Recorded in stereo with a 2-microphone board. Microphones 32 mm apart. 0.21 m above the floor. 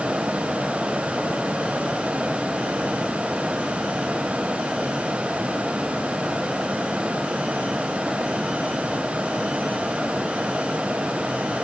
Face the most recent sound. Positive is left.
No sound to turn to.